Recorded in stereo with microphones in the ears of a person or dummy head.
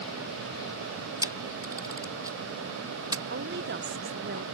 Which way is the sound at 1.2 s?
20° right (ahead or behind).